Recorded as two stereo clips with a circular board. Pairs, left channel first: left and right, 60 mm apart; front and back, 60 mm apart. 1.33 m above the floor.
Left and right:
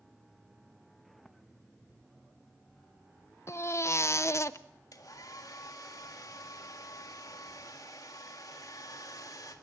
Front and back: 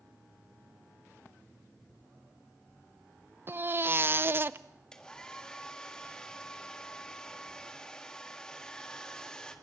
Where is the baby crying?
130° left, 0.6 m.